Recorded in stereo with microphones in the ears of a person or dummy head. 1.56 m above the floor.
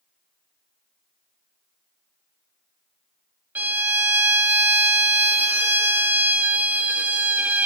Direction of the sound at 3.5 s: 10° right (ahead or behind).